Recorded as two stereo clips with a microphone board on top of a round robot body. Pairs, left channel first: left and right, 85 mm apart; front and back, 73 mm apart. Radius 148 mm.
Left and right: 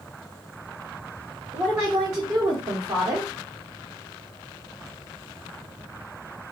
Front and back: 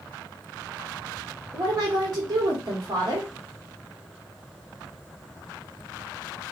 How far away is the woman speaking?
About 1.7 m.